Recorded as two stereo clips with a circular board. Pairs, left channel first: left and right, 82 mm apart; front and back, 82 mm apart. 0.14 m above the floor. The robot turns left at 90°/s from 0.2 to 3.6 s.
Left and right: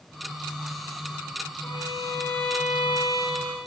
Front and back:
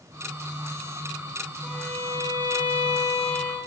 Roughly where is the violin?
Left.